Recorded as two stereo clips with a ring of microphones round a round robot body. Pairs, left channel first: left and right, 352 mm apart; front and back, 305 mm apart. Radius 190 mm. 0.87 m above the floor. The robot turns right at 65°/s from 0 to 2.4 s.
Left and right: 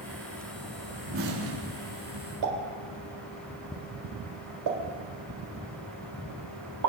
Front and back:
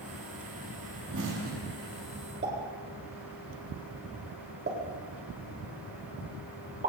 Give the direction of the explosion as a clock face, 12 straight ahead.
5 o'clock.